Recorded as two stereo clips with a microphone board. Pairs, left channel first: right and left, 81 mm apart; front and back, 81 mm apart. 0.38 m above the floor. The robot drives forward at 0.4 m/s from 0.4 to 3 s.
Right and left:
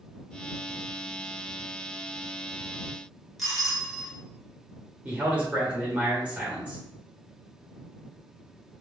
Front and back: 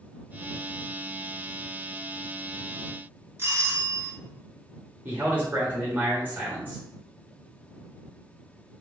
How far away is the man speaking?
About 1.3 m.